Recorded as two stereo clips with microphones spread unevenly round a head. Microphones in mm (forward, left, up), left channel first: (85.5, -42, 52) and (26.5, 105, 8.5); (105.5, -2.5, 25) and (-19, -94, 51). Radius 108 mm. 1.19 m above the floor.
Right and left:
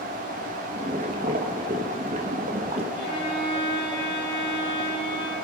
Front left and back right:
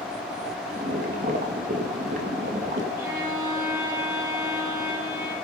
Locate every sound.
0.7 s boiling: 165° left, 2 m
3.0 s a violin: 70° right, 9.5 m